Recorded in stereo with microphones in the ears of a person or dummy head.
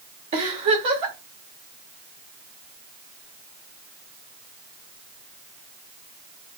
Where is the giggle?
30° right (ahead or behind), 2.5 m.